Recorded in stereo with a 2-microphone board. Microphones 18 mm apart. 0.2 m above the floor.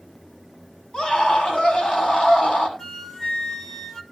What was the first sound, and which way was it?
A scream, 75° left (ahead or behind).